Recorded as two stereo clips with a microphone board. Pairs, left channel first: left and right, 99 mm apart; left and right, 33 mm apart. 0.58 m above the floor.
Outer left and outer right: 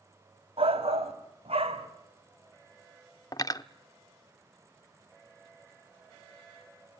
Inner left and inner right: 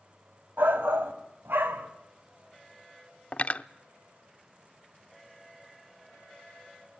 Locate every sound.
0.6 s a shout: 75° right (ahead or behind), 3 m; by 1.9 s 80° right, 3.5 m
3.3 s cutlery clinking: 40° left (ahead or behind), 0.6 m